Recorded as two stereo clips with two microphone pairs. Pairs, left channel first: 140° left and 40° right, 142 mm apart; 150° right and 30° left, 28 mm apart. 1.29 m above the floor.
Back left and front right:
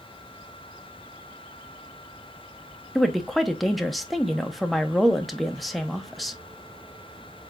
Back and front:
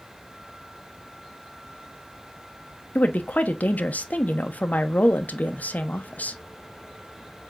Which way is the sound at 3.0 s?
130° right.